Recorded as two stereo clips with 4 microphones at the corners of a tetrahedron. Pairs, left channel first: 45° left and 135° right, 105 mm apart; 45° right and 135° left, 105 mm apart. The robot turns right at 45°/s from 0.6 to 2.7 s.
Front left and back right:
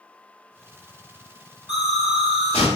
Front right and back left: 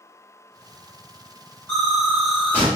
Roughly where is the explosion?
Ahead.